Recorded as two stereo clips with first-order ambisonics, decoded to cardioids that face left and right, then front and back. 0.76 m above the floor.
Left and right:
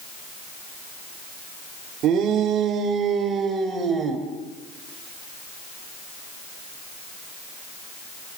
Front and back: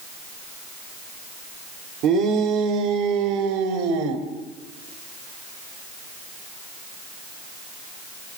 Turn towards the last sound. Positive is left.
turn(degrees=-170)